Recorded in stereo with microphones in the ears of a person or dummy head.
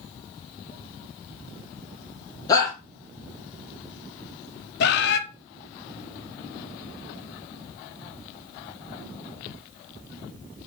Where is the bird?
60° left (ahead or behind), 1.2 m.